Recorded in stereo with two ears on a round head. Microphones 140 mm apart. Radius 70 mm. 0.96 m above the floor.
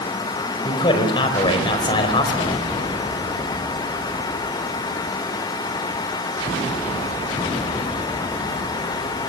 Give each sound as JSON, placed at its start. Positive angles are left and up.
{"t": 0.6, "sound": "a man speaking", "side_deg": 30, "distance_m": 4.5}